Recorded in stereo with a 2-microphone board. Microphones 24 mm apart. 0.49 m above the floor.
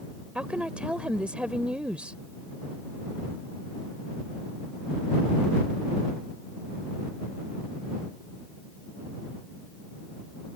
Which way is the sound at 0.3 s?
60° right (ahead or behind).